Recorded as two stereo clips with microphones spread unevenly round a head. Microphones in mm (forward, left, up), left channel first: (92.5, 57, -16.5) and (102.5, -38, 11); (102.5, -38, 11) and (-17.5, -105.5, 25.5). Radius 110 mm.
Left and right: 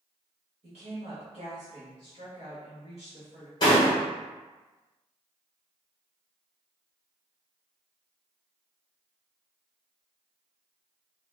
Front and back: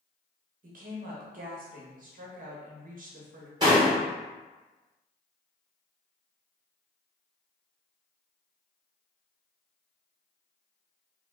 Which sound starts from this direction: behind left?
A door slam, at 3.6 s.